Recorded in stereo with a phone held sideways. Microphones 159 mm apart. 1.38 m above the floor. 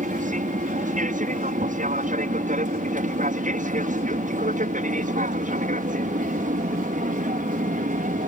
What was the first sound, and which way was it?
An aircraft, 55° right (ahead or behind).